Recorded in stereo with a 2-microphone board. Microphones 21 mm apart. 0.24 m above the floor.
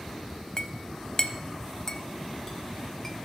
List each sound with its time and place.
0.6 s a clink: 30° left (ahead or behind), 0.6 m